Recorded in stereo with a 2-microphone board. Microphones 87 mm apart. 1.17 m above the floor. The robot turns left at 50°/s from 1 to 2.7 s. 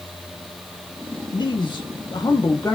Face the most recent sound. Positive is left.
turn(degrees=40)